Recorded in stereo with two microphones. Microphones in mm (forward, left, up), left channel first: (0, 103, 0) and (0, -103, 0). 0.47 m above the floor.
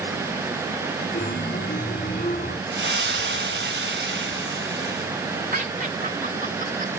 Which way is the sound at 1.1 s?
45° left (ahead or behind).